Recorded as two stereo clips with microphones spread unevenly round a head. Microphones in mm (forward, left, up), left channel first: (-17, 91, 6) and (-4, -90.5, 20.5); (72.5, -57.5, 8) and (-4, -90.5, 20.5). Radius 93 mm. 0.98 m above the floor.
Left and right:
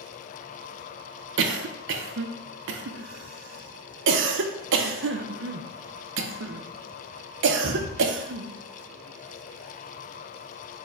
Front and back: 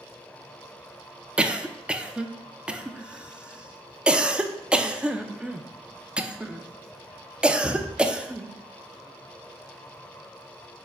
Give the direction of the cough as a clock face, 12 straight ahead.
2 o'clock.